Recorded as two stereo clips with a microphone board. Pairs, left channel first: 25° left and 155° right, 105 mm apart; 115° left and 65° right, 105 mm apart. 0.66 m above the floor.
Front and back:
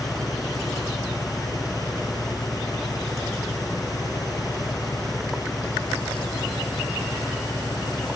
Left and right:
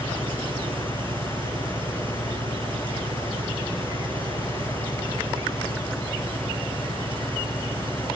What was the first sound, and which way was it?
An engine running, 30° right.